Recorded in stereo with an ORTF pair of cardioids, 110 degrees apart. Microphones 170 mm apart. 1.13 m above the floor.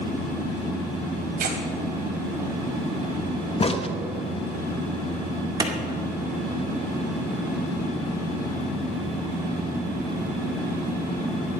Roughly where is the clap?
Ahead right.